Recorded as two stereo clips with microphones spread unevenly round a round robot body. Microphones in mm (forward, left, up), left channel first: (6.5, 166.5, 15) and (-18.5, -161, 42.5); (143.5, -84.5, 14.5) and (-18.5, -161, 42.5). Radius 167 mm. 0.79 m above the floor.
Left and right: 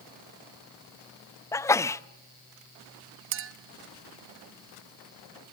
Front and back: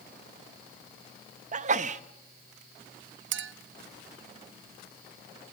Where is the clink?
150° right, 0.9 m.